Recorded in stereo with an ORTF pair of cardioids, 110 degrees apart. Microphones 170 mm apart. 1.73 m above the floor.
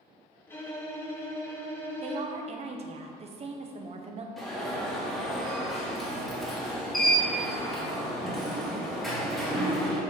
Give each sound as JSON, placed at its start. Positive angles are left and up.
{"t": 0.5, "sound": "a violin", "azimuth_deg": 15, "distance_m": 3.0}
{"t": 2.0, "sound": "a woman speaking", "azimuth_deg": -35, "distance_m": 1.2}
{"t": 4.4, "sound": "an alarm", "azimuth_deg": 0, "distance_m": 2.5}